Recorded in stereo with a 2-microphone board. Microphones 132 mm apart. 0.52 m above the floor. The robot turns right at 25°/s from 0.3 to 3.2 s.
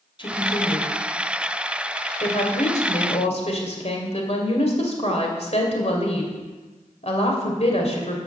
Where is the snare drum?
No snare drum in this recording.